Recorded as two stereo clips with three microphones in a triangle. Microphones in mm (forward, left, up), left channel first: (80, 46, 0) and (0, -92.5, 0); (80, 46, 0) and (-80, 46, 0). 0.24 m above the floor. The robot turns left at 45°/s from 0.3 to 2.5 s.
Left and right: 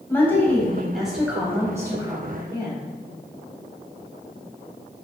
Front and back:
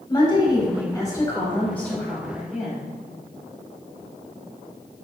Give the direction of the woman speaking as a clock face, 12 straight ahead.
12 o'clock.